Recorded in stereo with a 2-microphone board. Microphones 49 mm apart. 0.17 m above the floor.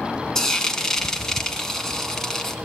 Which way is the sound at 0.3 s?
10° left (ahead or behind).